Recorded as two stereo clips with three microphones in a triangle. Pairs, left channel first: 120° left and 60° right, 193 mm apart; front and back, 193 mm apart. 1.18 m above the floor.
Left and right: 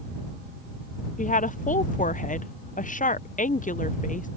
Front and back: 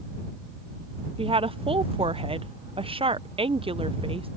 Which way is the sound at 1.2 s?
130° left.